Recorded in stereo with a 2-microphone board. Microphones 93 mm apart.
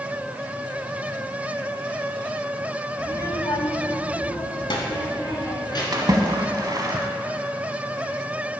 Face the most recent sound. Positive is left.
turn(degrees=-45)  # may be behind; listen again after turning